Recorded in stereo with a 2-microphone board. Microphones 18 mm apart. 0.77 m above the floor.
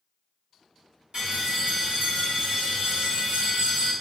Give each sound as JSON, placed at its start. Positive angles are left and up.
{"t": 1.1, "sound": "a bell", "side_deg": -50, "distance_m": 1.8}